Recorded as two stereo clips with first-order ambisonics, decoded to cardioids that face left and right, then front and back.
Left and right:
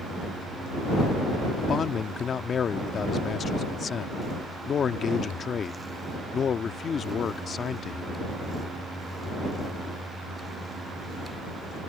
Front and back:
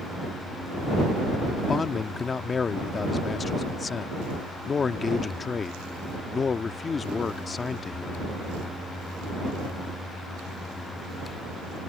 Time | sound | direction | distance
1.6 | a man speaking | 50° left | ?